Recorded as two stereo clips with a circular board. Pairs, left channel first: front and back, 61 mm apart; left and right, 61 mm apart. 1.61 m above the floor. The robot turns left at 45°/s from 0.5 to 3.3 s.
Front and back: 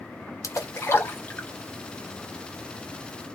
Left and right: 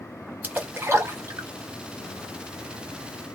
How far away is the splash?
About 0.9 m.